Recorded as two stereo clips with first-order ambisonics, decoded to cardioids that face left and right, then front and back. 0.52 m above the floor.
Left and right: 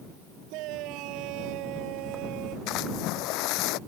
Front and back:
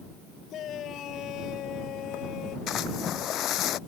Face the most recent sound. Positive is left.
turn(degrees=60)